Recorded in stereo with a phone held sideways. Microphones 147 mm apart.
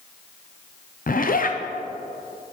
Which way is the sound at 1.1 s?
70° left (ahead or behind).